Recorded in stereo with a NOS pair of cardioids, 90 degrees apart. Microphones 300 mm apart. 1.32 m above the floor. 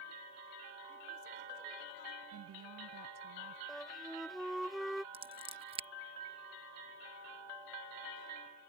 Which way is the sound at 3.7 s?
Straight ahead.